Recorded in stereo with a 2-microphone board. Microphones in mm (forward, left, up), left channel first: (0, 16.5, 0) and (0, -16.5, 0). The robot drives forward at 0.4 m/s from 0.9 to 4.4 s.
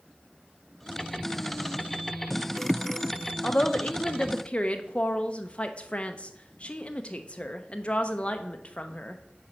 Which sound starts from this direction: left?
A woman speaking, at 3.4 s.